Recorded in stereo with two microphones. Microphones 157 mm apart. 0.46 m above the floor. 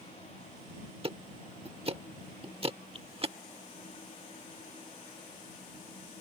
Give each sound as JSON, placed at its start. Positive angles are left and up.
{"t": 1.0, "sound": "ticking", "side_deg": -35}